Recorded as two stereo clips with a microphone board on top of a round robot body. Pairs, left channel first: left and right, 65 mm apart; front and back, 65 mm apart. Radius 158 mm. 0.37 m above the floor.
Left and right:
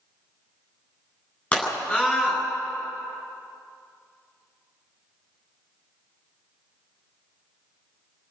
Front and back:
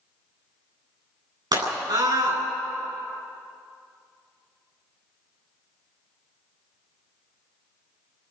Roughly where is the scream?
Behind.